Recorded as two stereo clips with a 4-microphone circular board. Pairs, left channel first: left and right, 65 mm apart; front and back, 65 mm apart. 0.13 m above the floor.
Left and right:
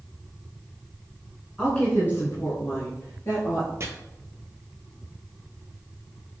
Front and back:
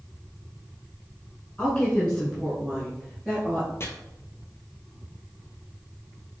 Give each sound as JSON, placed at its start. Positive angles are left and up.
{"t": 1.6, "sound": "a woman speaking", "azimuth_deg": 35, "distance_m": 1.1}
{"t": 3.8, "sound": "chopping", "azimuth_deg": -45, "distance_m": 0.6}